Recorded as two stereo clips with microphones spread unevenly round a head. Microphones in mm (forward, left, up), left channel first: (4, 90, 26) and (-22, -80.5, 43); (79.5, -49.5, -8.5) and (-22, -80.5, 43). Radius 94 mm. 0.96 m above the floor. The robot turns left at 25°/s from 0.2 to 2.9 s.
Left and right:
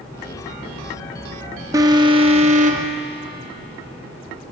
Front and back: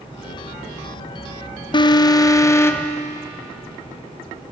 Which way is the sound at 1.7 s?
25° right.